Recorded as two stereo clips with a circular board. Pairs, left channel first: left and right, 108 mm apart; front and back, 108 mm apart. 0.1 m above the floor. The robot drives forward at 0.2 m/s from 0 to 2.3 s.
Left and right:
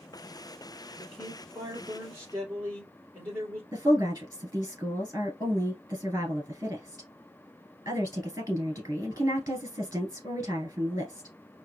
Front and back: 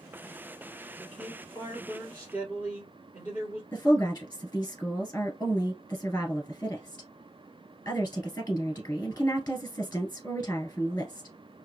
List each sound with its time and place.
1.0 s a man speaking: 130° right, 1.3 m; by 3.6 s 140° right, 1.4 m
3.7 s a woman speaking: 55° right, 1.5 m